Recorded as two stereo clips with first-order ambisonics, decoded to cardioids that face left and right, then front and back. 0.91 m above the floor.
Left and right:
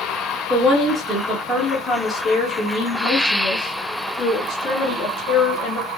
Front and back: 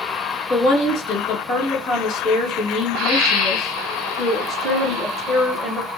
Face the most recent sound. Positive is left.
turn(degrees=80)